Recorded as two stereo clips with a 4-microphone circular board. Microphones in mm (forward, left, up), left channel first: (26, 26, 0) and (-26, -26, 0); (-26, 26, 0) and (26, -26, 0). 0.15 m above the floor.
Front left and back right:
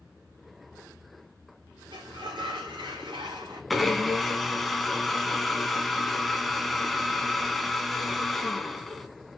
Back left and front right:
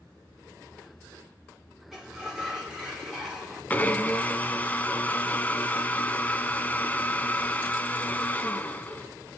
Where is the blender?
135° left, 0.9 m.